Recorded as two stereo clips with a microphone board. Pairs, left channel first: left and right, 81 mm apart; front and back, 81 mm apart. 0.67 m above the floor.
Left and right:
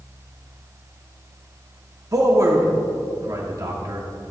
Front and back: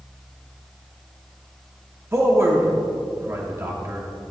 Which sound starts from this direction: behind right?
A man speaking, at 2.1 s.